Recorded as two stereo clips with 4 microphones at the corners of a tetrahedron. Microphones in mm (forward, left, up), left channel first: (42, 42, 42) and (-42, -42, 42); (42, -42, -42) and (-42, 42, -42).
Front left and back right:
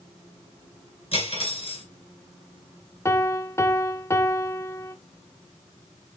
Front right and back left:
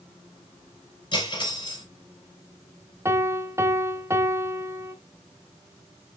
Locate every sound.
1.1 s cutlery clinking: 5° left, 3 m
3.0 s a piano: 95° left, 0.7 m